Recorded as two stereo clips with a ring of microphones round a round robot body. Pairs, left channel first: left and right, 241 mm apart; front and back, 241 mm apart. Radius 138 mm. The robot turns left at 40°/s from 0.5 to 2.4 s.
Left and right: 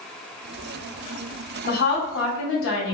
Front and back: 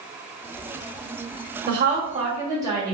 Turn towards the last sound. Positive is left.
turn(degrees=105)